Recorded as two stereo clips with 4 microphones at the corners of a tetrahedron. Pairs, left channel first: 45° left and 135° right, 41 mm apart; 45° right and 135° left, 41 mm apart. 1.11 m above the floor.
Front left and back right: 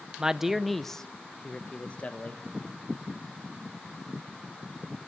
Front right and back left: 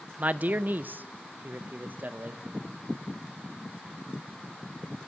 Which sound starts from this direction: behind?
A man speaking, at 0.2 s.